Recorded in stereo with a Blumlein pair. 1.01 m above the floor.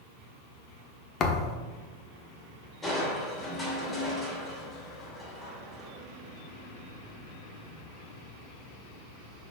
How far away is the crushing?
About 3 m.